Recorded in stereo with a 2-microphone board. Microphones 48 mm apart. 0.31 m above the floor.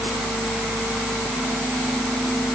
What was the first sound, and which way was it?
Only background noise.